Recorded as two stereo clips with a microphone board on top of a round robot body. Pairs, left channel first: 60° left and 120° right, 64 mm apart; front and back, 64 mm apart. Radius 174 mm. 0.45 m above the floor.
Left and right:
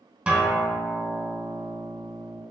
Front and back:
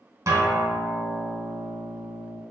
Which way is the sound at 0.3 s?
175° left.